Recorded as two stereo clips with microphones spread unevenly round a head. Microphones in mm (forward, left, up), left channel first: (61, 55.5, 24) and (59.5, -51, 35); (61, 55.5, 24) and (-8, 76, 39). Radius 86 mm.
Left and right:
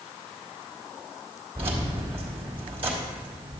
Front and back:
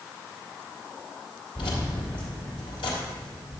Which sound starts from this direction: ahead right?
Keys jangling, at 1.6 s.